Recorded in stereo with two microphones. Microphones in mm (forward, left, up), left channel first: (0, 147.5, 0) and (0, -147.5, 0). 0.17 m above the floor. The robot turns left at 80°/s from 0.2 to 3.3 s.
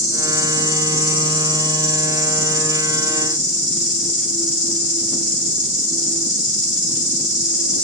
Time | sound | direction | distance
0.0 | an insect | 70° right | 4 m